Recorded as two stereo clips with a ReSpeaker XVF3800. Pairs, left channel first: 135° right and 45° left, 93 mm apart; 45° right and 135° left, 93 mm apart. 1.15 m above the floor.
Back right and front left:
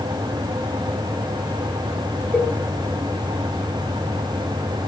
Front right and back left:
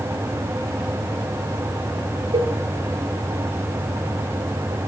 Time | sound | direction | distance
2.3 | a cowbell | 150° left | 1.1 m